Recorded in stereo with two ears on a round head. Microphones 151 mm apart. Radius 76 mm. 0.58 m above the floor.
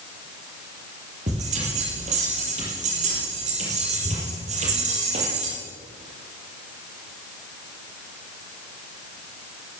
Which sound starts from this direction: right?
A bell, at 1.3 s.